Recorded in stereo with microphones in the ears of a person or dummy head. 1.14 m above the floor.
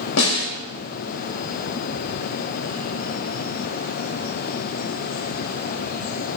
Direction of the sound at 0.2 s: 85° left.